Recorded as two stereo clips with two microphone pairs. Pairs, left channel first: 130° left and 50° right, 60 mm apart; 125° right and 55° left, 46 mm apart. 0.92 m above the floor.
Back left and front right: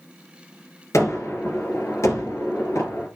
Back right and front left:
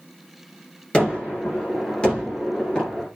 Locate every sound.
0.9 s a gunshot: 165° left, 5.5 m